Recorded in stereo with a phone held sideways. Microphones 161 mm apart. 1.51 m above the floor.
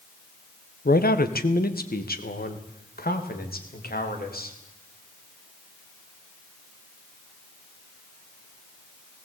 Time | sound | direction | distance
0.8 | a man speaking | 75° left (ahead or behind) | 1.2 m